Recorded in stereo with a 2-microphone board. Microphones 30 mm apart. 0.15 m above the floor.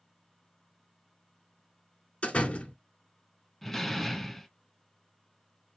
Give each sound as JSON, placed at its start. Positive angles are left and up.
{"t": 2.2, "sound": "a door slam", "side_deg": 45, "distance_m": 1.6}
{"t": 3.6, "sound": "a door slam", "side_deg": 5, "distance_m": 0.8}